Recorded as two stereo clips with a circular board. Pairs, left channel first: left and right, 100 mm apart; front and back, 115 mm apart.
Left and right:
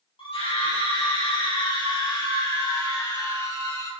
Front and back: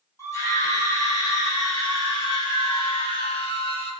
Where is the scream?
65° left, 5.5 m; by 3.9 s 30° left, 5 m.